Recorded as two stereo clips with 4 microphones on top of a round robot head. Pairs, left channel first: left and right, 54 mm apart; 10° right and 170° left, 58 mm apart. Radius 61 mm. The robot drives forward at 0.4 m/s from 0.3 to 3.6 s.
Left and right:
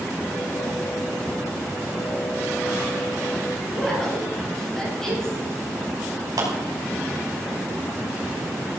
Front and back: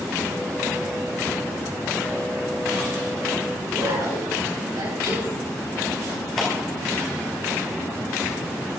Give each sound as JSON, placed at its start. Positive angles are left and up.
{"t": 3.7, "sound": "a woman speaking", "azimuth_deg": 170, "distance_m": 6.0}
{"t": 6.4, "sound": "a clap", "azimuth_deg": -95, "distance_m": 4.5}